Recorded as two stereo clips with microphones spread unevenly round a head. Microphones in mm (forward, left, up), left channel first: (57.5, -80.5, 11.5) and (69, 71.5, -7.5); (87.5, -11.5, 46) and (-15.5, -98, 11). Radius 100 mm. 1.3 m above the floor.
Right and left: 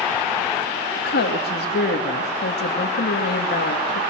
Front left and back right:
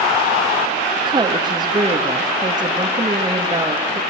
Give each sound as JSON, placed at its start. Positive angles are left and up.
{"t": 1.0, "sound": "a woman speaking", "azimuth_deg": -85, "distance_m": 2.5}